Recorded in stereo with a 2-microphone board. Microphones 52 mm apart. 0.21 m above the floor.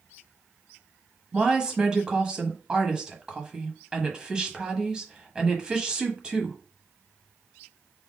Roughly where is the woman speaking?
Centre.